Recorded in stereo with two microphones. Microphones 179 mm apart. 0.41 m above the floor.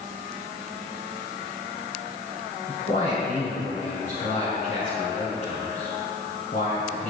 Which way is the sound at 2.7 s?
60° left (ahead or behind).